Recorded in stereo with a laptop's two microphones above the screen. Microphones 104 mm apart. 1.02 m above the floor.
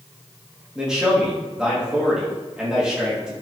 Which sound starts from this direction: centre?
A man speaking, at 0.8 s.